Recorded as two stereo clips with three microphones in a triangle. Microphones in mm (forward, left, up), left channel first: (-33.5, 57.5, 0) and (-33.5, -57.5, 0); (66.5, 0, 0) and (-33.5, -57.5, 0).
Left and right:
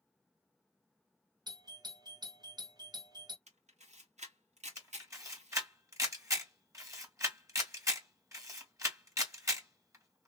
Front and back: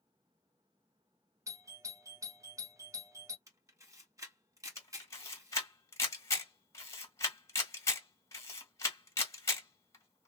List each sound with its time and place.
1.5 s a doorbell: 105° right, 0.9 m
3.5 s a camera shutter: 85° right, 1.3 m
4.8 s a camera shutter: 30° right, 1.7 m